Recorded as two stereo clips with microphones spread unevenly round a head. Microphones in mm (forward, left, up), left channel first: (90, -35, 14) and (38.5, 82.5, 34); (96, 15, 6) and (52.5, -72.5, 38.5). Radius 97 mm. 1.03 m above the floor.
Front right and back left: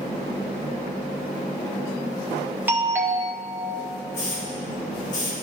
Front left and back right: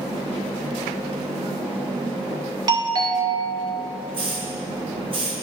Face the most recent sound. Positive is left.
turn(degrees=-85)